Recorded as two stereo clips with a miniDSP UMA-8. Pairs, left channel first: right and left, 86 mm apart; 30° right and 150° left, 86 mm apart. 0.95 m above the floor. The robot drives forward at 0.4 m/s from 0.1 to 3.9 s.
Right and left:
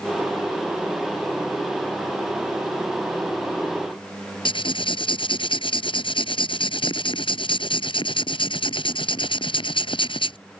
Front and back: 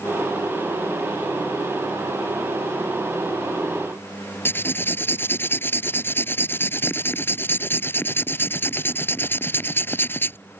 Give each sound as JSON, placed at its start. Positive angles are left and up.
{"t": 4.5, "sound": "writing", "azimuth_deg": -95}